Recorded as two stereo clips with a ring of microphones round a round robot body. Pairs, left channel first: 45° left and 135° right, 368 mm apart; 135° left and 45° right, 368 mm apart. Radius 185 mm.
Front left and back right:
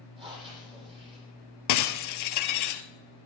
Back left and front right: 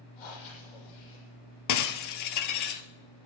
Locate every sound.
0.2 s breathing: 150° left, 6.5 m
1.7 s breaking glass: 90° left, 1.1 m